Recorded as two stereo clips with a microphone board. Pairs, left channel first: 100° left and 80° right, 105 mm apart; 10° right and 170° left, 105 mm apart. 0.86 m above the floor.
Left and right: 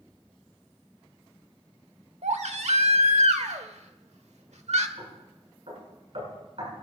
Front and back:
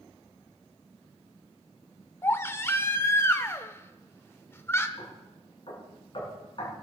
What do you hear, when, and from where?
2.2 s a baby crying: 80° right, 1.1 m
5.0 s knocking: 50° right, 10 m